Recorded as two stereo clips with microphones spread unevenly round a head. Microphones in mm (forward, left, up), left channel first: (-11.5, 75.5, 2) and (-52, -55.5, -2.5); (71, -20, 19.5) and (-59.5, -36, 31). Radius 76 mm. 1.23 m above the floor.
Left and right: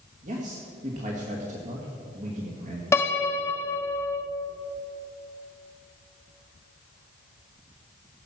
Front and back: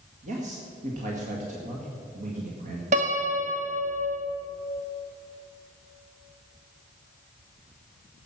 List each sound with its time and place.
0.2 s a man speaking: 140° right, 1.9 m
2.9 s a piano: 140° left, 1.3 m